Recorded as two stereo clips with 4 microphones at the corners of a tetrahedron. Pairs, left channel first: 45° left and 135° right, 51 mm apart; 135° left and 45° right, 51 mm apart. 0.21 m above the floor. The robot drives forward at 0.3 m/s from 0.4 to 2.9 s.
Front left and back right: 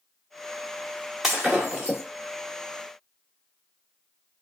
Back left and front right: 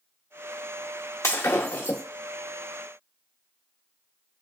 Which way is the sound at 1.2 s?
145° left.